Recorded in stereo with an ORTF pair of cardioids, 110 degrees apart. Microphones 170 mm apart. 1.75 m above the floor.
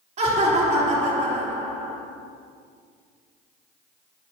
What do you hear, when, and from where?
0.2 s laughter: 45° right, 3.5 m